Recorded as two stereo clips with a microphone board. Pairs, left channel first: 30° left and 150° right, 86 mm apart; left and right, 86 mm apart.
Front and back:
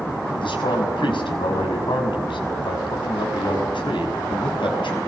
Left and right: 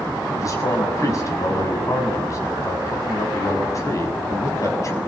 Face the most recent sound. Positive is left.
turn(degrees=40)